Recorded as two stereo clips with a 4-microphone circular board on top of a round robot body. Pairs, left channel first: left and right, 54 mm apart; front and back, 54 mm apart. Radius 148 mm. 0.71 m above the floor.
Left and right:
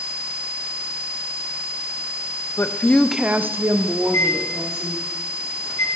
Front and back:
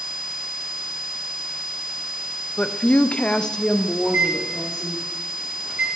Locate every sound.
2.6 s a woman speaking: 65° left, 0.6 m; by 5.0 s 90° right, 1.6 m
4.0 s a microwave: 120° left, 2.5 m